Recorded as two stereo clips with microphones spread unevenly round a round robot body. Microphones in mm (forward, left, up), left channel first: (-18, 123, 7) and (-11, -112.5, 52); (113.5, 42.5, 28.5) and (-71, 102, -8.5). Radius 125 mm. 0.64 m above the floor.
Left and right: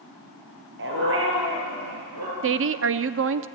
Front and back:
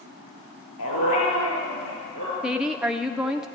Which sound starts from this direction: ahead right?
A dog barking, at 0.8 s.